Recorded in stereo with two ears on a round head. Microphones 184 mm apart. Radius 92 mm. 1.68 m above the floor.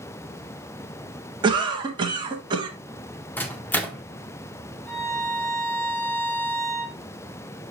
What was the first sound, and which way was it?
A cough, 20° right (ahead or behind).